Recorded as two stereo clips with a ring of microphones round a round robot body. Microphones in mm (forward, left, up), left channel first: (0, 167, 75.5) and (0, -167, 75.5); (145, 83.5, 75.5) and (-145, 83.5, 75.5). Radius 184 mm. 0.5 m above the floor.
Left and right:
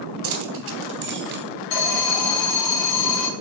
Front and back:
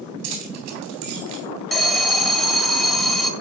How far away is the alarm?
About 2.5 m.